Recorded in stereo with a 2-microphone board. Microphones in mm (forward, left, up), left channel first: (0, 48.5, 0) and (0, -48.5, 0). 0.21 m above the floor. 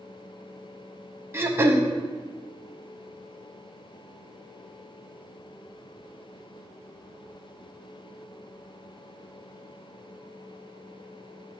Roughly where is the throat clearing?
Right.